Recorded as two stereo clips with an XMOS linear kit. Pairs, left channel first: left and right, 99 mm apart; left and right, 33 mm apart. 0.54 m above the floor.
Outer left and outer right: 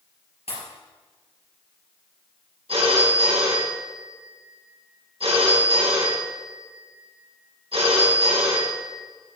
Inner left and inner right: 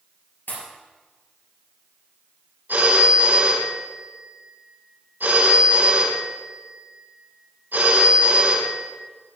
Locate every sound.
0.5 s a pop: 85° left, 3.5 m
2.7 s a phone ringing: 80° right, 3 m